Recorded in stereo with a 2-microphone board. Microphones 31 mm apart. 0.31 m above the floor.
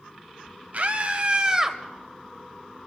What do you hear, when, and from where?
0.7 s a scream: 50° right (ahead or behind), 1.7 m; by 1.8 s 10° right (ahead or behind), 1.2 m